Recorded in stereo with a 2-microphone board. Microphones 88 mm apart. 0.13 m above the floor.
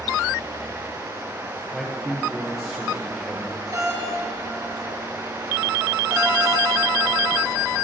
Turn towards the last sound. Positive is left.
turn(degrees=-45)  # may be behind; listen again after turning